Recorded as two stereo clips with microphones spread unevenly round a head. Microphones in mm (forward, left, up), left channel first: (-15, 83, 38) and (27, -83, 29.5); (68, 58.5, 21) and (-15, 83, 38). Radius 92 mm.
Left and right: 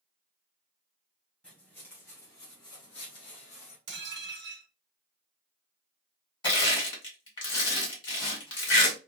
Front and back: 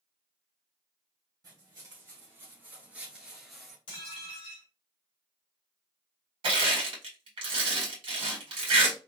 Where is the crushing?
165° left, 1.6 m.